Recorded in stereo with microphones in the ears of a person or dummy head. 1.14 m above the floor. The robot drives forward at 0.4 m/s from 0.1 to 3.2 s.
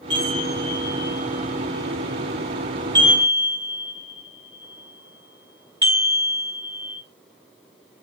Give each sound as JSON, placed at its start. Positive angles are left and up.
{"t": 0.1, "sound": "a chime", "side_deg": -20, "distance_m": 2.5}